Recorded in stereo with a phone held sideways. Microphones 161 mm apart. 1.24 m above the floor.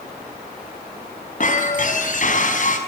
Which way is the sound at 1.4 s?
55° left (ahead or behind).